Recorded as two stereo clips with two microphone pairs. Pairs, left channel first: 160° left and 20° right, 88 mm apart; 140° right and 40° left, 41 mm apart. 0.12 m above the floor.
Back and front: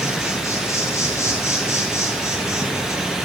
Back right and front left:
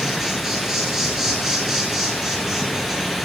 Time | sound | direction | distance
0.0 | an insect | 120° left | 0.8 m